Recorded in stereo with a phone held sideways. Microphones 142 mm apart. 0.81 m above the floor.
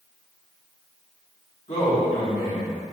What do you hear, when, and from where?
1.7 s a man speaking: 55° left (ahead or behind), 1.8 m